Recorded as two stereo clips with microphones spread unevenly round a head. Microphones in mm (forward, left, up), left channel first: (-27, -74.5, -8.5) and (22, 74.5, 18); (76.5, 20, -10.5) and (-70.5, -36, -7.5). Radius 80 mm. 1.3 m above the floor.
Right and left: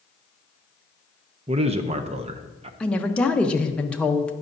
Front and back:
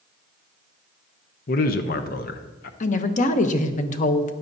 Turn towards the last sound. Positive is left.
turn(degrees=-25)